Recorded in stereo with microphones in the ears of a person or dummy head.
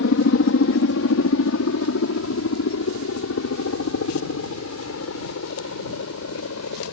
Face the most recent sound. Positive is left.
turn(degrees=80)